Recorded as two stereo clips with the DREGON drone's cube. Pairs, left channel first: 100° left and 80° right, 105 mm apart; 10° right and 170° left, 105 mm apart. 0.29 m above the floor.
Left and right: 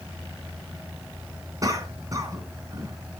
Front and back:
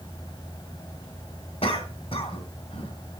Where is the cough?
25° right, 2.5 m.